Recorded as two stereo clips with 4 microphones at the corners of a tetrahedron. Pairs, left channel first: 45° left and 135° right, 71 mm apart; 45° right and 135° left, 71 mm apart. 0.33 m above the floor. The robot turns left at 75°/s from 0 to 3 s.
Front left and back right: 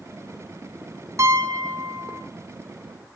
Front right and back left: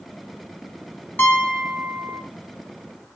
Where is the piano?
100° right, 2 m; by 2.2 s straight behind, 2 m.